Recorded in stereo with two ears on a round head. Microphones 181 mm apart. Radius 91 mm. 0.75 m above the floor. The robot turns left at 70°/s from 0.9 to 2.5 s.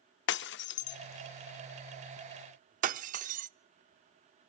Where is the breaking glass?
60° left (ahead or behind), 0.5 m; by 3.5 s 40° right (ahead or behind), 0.5 m.